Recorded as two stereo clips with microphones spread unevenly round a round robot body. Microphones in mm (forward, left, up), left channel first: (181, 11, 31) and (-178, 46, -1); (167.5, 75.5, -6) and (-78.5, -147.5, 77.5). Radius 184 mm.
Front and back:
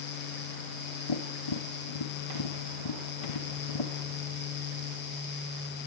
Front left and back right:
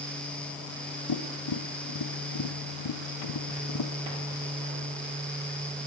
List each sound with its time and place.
1.1 s tapping: 5° left, 1.6 m